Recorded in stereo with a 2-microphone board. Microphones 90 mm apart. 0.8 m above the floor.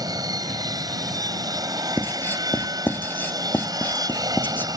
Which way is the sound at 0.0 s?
45° right (ahead or behind).